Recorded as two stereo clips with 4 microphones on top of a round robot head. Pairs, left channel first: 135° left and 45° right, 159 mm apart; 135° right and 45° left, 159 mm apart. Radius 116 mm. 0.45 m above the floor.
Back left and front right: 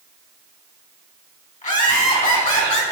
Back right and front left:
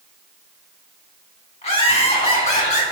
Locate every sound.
1.6 s laughter: 175° left, 4 m; by 2.8 s straight behind, 4.5 m